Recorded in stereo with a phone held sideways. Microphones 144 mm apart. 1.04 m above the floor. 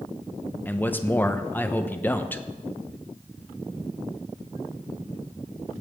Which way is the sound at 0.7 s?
15° left (ahead or behind).